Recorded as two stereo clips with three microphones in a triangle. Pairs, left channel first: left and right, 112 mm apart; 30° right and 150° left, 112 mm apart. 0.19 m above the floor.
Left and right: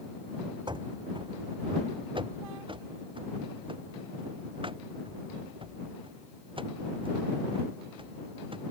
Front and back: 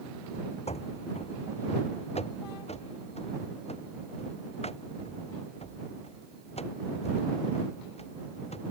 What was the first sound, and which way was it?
Running footsteps, 45° right.